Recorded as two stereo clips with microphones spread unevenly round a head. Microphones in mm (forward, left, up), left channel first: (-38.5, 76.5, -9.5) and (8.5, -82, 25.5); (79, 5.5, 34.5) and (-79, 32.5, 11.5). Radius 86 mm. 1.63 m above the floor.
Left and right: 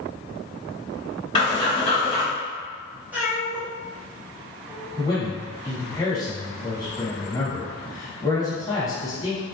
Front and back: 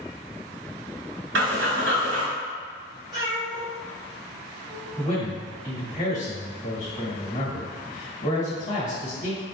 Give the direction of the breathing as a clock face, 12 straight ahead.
6 o'clock.